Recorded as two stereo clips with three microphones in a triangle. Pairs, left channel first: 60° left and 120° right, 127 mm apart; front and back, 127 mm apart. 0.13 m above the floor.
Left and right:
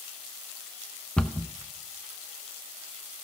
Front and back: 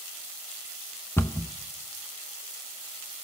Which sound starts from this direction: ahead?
A cupboard door, at 1.2 s.